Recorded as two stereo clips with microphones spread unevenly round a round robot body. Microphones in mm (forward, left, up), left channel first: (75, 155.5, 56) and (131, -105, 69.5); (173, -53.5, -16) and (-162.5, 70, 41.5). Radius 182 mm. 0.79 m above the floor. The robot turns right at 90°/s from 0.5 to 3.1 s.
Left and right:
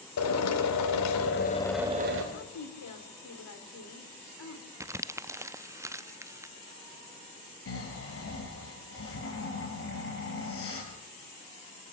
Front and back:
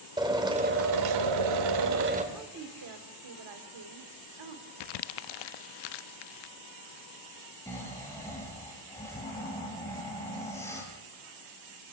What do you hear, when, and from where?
0.2 s a drill: 80° left, 2.5 m; by 2.2 s 125° right, 2.5 m
2.3 s a woman speaking: 70° left, 3 m; by 4.7 s 140° left, 3 m
4.8 s crumpling: 5° left, 0.5 m
7.7 s snoring: 65° left, 5 m